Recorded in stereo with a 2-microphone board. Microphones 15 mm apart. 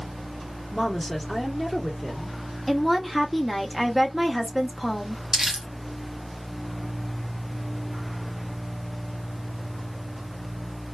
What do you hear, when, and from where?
0.7 s a woman speaking: 5° left (ahead or behind), 1.3 m
2.7 s a woman speaking: 5° right (ahead or behind), 0.7 m
5.3 s crumpling: 50° right (ahead or behind), 0.9 m